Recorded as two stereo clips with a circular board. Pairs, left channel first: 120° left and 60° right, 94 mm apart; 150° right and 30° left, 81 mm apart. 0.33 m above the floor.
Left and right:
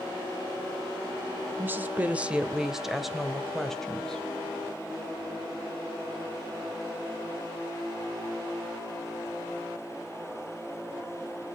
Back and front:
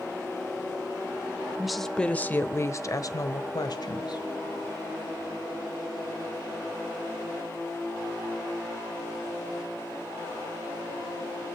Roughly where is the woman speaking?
Ahead right.